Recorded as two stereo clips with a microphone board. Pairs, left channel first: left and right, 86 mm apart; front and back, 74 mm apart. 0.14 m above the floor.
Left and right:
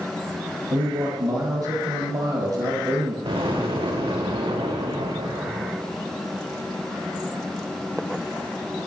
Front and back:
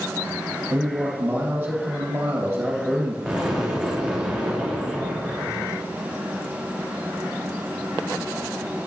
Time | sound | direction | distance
0.7 | a man speaking | 115° right | 3 m
3.2 | an explosion | 90° right | 3 m